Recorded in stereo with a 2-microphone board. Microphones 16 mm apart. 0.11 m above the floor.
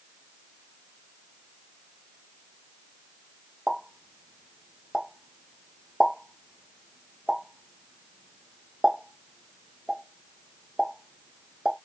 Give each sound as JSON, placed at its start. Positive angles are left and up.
{"t": 3.7, "sound": "a pop", "side_deg": -60, "distance_m": 1.1}